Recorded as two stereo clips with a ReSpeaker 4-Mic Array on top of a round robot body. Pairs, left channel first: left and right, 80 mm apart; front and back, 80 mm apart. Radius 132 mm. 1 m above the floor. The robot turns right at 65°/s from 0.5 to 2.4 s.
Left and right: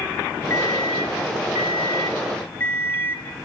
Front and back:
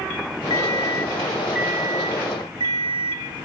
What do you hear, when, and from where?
0.5 s an alarm clock: 35° left, 1.6 m; by 3.2 s 155° left, 1.6 m